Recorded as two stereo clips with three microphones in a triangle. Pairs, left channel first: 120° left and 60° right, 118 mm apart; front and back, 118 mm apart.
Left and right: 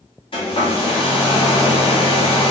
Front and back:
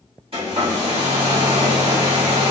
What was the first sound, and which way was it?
A hair dryer, 155° left.